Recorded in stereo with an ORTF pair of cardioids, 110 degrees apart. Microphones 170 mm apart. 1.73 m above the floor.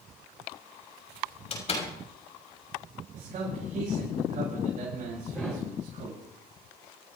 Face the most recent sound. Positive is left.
turn(degrees=5)